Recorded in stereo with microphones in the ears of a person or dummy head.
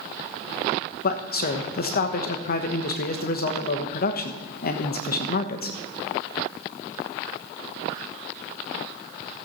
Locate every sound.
1.0 s a man speaking: 50° left (ahead or behind), 1.1 m